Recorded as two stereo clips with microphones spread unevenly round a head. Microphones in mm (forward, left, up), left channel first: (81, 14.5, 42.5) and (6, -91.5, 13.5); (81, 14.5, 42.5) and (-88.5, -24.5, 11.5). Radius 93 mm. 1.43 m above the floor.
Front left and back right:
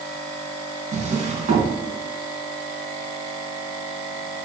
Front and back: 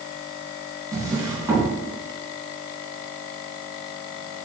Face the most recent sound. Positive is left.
turn(degrees=-90)